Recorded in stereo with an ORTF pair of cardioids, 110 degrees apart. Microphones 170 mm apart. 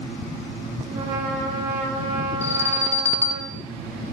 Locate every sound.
0.9 s a trumpet: 50° right, 3 m
2.4 s an alarm: 10° left, 1.1 m